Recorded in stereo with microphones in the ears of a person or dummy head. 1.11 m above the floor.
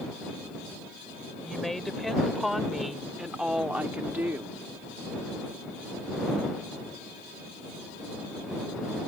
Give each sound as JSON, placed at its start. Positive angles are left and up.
{"t": 1.4, "sound": "a woman speaking", "side_deg": 0}